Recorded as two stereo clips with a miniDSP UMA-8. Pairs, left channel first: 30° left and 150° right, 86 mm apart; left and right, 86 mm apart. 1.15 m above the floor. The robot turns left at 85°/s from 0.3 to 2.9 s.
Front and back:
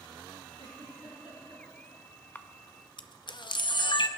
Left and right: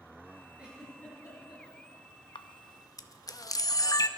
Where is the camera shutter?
95° left, 0.7 m; by 4.1 s 50° left, 0.7 m.